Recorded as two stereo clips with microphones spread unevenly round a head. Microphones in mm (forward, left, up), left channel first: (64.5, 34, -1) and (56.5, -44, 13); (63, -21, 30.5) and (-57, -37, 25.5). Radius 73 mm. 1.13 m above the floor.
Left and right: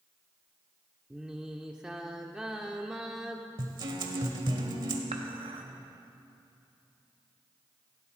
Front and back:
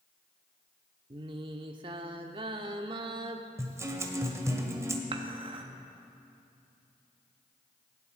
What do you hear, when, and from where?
1.1 s singing: 155° right, 0.8 m
3.6 s a guitar: 105° right, 1.5 m
5.1 s dishes clattering: 125° right, 1.2 m